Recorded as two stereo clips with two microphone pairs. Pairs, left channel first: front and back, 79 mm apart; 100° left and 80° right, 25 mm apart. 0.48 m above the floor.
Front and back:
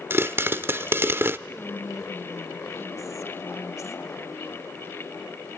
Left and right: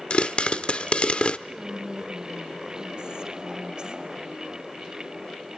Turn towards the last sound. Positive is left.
turn(degrees=-35)